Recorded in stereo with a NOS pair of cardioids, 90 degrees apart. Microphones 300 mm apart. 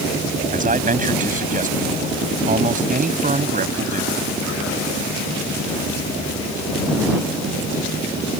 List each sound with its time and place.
0.5 s a man speaking: 25° right